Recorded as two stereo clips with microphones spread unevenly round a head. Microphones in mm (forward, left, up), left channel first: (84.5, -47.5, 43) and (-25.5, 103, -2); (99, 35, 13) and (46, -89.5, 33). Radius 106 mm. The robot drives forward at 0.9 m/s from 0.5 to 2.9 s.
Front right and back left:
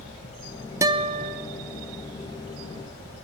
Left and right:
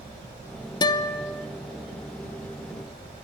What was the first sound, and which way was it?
A guitar, 40° left.